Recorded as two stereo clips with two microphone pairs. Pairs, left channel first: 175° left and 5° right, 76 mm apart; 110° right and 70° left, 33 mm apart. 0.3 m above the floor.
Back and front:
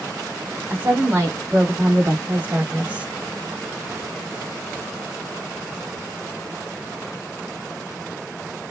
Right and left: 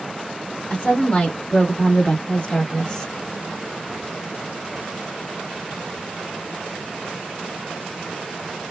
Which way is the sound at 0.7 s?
60° right.